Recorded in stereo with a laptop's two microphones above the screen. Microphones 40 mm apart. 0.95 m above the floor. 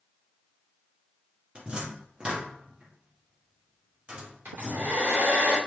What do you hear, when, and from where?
1.6 s a cupboard door: 25° right (ahead or behind), 0.9 m
4.5 s a hair dryer: 70° right (ahead or behind), 2 m